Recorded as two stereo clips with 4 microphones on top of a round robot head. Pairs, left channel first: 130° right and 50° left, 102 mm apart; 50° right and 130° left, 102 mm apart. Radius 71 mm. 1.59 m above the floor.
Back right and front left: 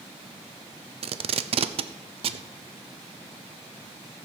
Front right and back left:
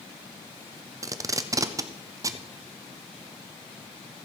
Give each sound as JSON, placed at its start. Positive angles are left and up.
{"t": 1.0, "sound": "tape being pulled", "azimuth_deg": 75, "distance_m": 0.6}